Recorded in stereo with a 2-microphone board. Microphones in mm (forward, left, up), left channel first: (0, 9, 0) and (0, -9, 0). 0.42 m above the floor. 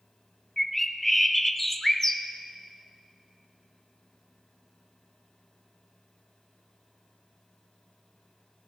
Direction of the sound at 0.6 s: 10° left (ahead or behind).